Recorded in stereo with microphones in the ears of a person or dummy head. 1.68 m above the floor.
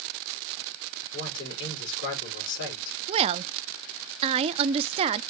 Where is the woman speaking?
35° right (ahead or behind), 0.6 m.